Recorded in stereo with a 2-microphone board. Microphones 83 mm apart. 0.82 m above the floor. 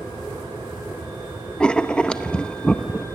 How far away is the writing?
About 0.9 m.